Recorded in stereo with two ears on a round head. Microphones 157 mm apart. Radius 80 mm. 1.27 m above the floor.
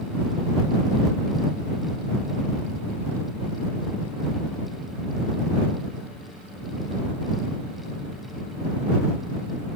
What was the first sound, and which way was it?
Only background noise.